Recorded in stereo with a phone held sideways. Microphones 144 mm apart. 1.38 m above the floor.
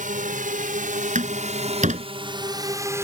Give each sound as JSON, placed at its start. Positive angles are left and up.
{"t": 0.0, "sound": "a drone", "side_deg": -75}
{"t": 1.1, "sound": "a door slam", "side_deg": -65}